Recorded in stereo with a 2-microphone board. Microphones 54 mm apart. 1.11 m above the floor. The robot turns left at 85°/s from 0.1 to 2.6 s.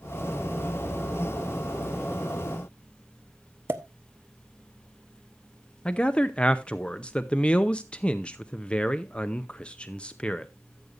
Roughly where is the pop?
Right.